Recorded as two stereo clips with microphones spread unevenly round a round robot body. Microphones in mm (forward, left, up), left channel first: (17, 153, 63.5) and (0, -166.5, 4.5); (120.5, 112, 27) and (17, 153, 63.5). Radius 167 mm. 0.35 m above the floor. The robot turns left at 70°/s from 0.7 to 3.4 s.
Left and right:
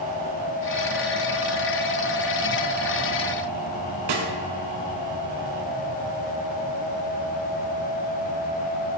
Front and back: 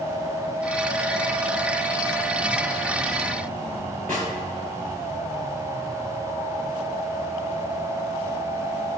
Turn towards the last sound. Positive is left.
turn(degrees=-110)